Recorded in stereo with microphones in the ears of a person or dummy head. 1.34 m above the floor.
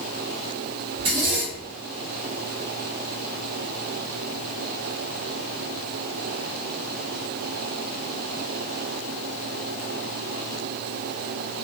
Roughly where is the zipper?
Right.